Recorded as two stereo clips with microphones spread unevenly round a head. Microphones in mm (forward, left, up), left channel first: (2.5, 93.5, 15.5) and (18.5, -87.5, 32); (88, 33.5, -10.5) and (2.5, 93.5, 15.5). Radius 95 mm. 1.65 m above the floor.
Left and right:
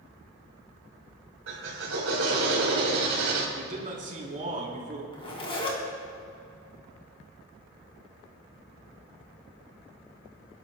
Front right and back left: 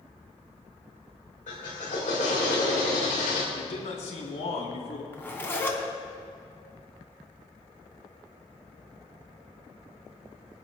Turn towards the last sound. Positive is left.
turn(degrees=35)